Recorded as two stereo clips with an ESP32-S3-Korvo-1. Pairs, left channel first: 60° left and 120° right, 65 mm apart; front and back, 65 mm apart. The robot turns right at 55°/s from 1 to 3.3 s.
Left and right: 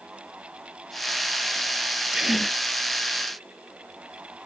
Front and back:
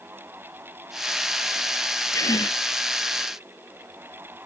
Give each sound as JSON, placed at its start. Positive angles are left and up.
{"t": 2.1, "sound": "a gasp", "azimuth_deg": -45}